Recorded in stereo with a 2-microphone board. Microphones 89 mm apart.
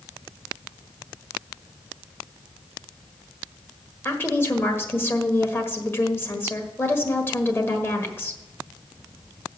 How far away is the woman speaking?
About 1.3 m.